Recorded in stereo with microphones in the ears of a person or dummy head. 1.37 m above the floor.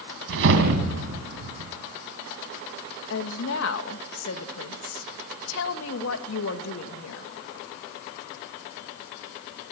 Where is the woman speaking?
70° left (ahead or behind), 2 m.